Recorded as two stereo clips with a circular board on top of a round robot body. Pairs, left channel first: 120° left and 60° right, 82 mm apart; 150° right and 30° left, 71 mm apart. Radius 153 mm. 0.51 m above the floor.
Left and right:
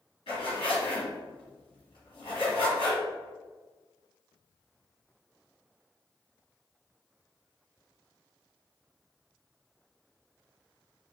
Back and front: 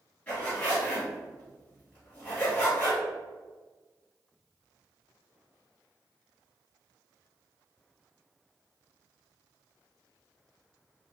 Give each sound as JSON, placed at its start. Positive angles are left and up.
{"t": 0.3, "sound": "a zipper", "azimuth_deg": 140, "distance_m": 1.7}